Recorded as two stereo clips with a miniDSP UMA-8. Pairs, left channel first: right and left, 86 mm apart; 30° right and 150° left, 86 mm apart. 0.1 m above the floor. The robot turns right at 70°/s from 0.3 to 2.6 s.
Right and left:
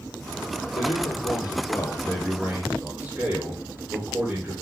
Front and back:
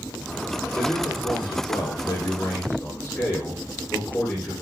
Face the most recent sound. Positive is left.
turn(degrees=25)